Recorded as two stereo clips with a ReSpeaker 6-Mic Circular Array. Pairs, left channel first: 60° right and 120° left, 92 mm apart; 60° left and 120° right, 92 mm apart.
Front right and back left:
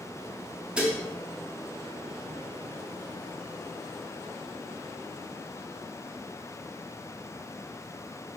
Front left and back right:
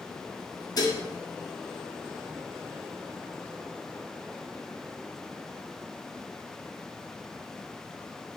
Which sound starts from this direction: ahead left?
Dishes clattering, at 0.8 s.